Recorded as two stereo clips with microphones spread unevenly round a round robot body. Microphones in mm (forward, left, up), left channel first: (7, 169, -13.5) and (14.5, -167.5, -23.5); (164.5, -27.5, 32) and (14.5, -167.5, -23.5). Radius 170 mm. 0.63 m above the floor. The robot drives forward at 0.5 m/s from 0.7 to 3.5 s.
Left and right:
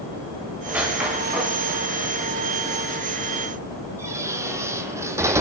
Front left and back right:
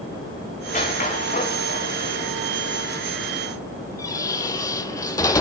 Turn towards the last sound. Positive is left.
turn(degrees=-10)